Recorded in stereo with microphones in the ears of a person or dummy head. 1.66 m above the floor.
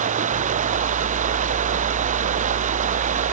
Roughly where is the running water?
Right.